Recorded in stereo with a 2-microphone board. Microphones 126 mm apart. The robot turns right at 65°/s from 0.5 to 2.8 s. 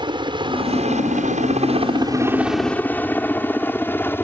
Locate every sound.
0.0 s a helicopter: 40° right (ahead or behind); by 4.2 s 15° left (ahead or behind)